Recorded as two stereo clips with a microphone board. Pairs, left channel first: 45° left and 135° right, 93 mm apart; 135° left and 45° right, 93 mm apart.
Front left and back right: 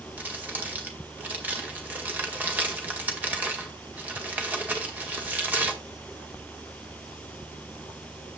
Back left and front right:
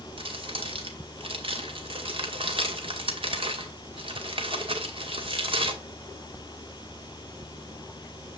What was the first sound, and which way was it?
Crumpling, 60° right.